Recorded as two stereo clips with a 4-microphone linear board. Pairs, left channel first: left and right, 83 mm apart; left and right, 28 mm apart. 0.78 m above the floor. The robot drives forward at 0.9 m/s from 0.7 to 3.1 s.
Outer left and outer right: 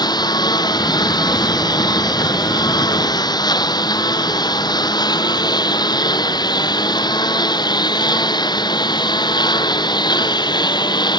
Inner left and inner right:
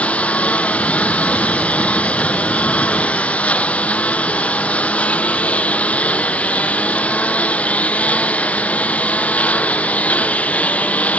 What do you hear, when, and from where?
0.0 s a lawn mower: 60° left (ahead or behind); by 11.2 s 65° left (ahead or behind)